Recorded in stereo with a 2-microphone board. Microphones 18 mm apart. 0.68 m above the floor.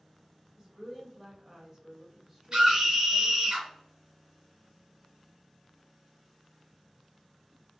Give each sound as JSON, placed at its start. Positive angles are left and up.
{"t": 0.6, "sound": "a woman speaking", "side_deg": -20, "distance_m": 1.5}
{"t": 2.5, "sound": "a scream", "side_deg": -30, "distance_m": 1.1}